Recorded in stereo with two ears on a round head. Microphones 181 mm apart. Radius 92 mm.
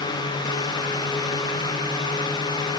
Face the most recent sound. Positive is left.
No sound to turn to.